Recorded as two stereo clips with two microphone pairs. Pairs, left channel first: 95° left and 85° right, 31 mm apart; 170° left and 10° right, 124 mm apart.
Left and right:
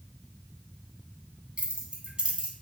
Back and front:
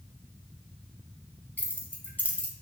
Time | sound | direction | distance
1.6 | keys jangling | 120° right | 0.9 m